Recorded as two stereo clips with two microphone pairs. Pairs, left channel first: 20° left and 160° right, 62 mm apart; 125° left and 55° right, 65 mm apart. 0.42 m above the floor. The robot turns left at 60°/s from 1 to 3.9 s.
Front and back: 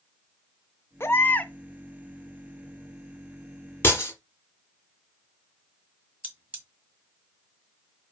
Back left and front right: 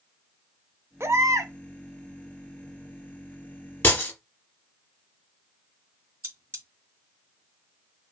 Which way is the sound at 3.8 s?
75° left.